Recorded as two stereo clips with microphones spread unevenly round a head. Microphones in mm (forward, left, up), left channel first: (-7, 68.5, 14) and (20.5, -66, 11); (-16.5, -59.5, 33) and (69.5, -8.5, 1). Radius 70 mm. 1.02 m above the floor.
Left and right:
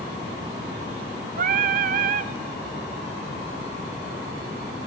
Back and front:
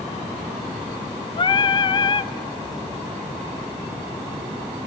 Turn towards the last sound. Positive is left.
turn(degrees=-100)